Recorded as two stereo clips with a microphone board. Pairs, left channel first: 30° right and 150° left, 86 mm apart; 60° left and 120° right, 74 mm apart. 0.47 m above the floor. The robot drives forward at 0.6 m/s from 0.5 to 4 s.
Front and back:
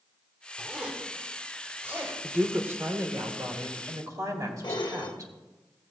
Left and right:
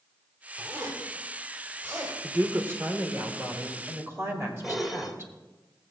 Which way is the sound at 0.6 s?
135° right.